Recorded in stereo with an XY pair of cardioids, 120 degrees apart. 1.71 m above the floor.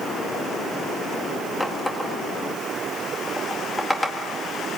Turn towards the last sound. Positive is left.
turn(degrees=5)